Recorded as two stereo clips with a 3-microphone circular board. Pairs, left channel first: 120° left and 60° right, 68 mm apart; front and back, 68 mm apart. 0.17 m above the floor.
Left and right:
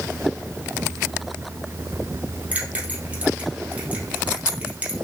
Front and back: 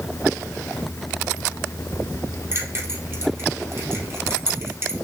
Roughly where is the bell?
Behind right.